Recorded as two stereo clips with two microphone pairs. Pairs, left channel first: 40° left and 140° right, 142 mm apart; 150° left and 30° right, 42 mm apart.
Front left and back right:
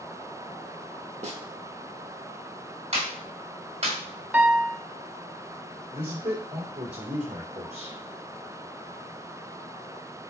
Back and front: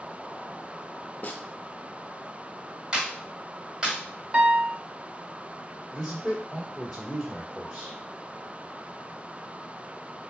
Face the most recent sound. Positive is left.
turn(degrees=-120)